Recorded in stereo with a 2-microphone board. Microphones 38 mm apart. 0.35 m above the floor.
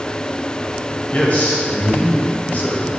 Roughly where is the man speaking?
Left.